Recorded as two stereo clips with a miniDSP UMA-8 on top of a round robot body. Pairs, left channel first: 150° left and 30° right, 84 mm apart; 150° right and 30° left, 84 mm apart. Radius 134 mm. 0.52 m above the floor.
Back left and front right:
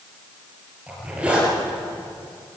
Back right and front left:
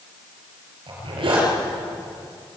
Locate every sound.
0.9 s a zipper: 45° left, 6 m